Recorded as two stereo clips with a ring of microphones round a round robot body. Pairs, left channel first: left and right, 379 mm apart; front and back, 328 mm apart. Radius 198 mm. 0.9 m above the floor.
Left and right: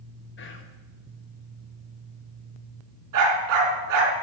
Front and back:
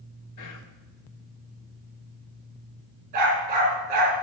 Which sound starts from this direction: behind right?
A dog barking, at 3.1 s.